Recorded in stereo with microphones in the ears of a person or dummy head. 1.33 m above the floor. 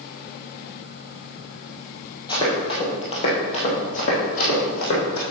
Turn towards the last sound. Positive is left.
turn(degrees=55)  # may be behind; listen again after turning